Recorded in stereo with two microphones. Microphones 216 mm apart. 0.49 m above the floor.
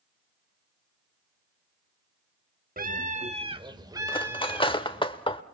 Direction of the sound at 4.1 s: 25° left (ahead or behind).